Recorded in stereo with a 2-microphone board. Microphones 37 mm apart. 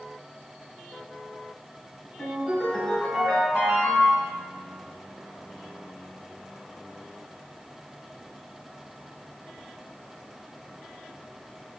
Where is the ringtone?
30° left (ahead or behind), 1.9 m.